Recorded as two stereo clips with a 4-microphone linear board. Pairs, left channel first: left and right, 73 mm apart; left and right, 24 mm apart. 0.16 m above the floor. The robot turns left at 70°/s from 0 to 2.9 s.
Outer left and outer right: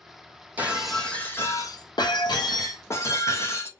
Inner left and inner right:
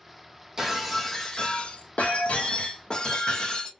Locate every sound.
0.6 s breaking glass: 160° right, 1.0 m; by 3.7 s 40° left, 1.0 m